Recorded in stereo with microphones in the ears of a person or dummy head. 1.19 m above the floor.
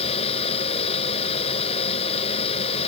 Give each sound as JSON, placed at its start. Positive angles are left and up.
{"t": 0.0, "sound": "a fan", "side_deg": 35}